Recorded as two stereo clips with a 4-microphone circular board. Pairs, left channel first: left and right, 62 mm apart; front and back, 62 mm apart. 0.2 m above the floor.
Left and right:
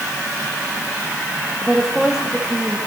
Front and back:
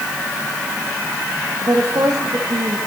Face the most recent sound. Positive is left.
turn(degrees=-170)